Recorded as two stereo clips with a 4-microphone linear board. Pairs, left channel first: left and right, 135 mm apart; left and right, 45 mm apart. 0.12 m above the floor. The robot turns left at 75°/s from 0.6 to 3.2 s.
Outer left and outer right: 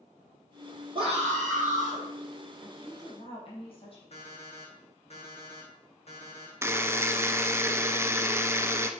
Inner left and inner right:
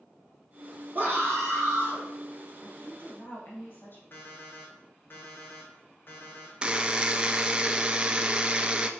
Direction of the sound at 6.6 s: 20° right (ahead or behind).